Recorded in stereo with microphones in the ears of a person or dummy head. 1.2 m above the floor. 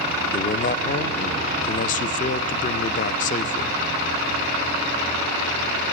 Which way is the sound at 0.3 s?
40° left (ahead or behind).